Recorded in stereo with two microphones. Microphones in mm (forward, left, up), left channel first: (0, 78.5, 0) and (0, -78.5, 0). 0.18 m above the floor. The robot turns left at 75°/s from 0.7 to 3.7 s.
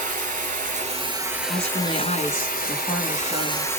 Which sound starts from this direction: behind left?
A woman speaking, at 1.5 s.